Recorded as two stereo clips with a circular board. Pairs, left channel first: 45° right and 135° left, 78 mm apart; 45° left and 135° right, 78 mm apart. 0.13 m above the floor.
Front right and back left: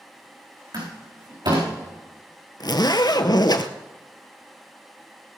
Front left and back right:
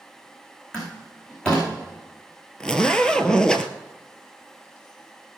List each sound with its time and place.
0.7 s a door slam: 125° left, 7 m
2.6 s a zipper: 35° right, 1.0 m